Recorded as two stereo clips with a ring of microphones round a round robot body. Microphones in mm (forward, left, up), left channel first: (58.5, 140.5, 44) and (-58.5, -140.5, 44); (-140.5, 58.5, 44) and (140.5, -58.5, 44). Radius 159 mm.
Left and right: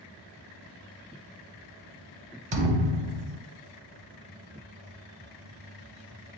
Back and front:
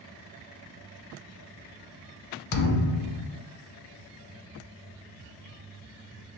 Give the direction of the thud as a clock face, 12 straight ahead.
6 o'clock.